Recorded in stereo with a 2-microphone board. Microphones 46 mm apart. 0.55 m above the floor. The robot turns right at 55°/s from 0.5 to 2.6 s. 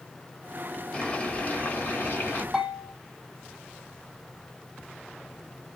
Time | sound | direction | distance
0.9 | boiling | 30° left | 1.7 m
2.5 | a bell | 10° right (ahead or behind) | 1.9 m